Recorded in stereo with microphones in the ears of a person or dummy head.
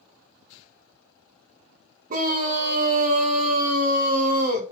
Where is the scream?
45° right (ahead or behind), 1.2 m.